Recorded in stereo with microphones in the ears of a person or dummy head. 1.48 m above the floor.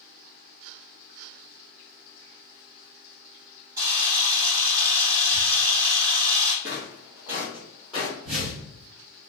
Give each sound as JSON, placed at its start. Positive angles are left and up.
{"t": 3.8, "sound": "a camera shutter", "side_deg": -15, "distance_m": 0.8}
{"t": 6.6, "sound": "footsteps", "side_deg": -15, "distance_m": 1.5}
{"t": 8.2, "sound": "a whoosh", "side_deg": -30, "distance_m": 1.5}